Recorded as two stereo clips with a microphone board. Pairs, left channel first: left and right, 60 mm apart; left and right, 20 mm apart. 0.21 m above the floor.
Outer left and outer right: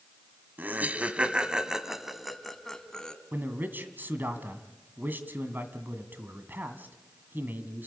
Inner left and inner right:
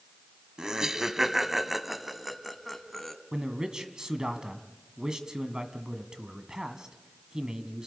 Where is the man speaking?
35° right (ahead or behind), 1.9 m.